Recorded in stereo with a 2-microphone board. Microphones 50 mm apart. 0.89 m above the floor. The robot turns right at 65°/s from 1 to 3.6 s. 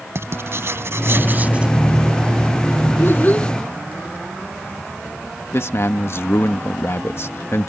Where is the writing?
65° right; by 1.8 s 15° right.